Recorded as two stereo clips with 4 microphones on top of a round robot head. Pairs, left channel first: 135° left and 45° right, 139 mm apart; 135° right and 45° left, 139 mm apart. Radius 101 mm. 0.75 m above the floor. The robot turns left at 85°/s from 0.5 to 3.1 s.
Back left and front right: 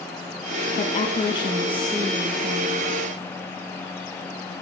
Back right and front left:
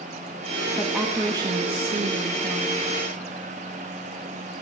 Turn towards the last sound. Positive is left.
turn(degrees=-55)